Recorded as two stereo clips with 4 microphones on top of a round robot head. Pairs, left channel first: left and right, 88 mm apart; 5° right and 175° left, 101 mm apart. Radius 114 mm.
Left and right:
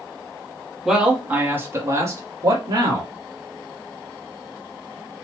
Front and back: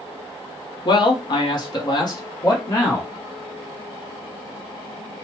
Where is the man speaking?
5° right, 1.0 m; by 3.1 s 55° right, 1.6 m.